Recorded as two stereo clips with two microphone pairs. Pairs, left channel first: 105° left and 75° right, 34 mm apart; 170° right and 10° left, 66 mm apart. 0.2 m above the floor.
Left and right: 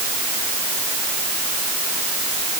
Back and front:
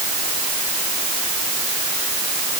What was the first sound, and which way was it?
Only background noise.